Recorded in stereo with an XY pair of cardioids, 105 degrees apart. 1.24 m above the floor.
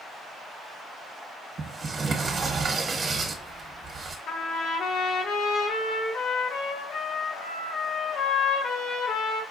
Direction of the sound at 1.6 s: 30° right.